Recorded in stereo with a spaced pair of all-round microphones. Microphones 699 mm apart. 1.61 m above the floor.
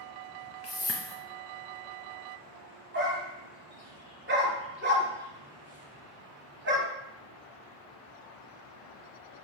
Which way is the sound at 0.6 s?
25° left (ahead or behind).